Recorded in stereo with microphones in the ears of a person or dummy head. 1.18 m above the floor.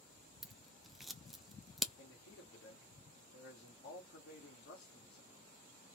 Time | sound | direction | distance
0.4 | scissors | centre (ahead or behind) | 0.7 m
2.0 | a man speaking | 60° left (ahead or behind) | 2 m